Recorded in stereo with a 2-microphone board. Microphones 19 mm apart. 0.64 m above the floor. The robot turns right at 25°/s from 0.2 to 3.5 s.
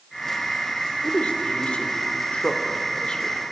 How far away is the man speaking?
About 2.5 m.